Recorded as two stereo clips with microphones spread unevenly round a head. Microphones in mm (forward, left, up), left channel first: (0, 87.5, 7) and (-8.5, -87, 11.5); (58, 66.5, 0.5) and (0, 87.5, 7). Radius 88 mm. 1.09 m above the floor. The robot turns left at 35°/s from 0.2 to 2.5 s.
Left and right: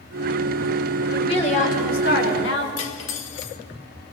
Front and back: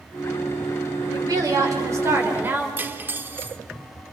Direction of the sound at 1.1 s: 155° left.